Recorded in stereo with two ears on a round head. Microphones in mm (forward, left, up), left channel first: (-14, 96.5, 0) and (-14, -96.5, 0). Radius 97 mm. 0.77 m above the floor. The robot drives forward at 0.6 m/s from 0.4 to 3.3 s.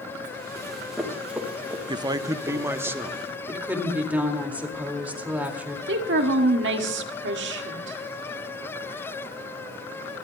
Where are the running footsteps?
Centre (ahead or behind), 3 m; by 2.9 s 15° right (ahead or behind), 4 m.